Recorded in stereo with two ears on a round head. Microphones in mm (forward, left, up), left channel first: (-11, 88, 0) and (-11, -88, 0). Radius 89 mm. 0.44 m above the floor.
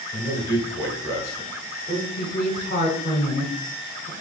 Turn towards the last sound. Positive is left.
turn(degrees=40)  # may be behind; listen again after turning